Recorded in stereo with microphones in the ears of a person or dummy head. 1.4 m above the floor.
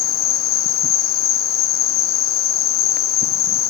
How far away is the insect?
About 0.7 m.